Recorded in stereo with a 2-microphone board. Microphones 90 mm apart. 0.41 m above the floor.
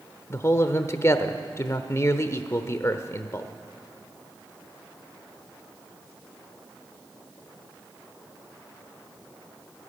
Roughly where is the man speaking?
Left.